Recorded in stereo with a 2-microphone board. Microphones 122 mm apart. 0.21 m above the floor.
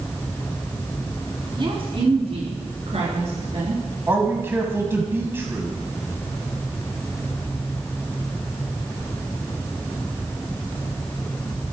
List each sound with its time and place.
1.6 s a woman speaking: 45° right (ahead or behind), 1.9 m; by 3.8 s 65° right (ahead or behind), 4 m
4.1 s a man speaking: 20° right (ahead or behind), 1.1 m